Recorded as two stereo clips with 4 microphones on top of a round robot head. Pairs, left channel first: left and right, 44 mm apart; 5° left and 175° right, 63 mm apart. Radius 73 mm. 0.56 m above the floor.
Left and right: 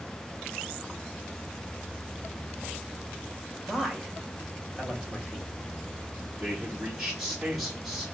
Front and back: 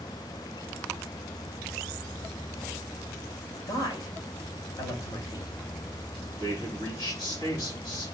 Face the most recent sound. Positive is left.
turn(degrees=-10)